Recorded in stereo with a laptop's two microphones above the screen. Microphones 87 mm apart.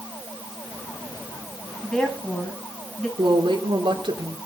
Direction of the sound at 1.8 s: 10° left (ahead or behind).